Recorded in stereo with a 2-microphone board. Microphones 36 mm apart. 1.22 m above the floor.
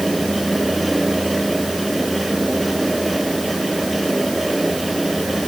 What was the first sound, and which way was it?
Only background noise.